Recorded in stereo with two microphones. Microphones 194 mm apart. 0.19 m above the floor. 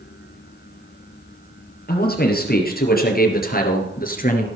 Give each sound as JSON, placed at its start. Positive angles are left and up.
{"t": 1.9, "sound": "a man speaking", "side_deg": 55, "distance_m": 4.0}